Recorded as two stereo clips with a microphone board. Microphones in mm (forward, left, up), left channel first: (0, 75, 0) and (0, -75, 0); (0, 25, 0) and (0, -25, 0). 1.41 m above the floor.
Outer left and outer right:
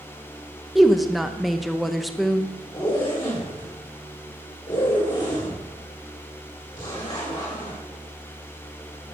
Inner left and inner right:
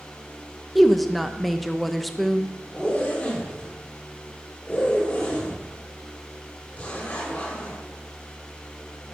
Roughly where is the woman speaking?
Centre.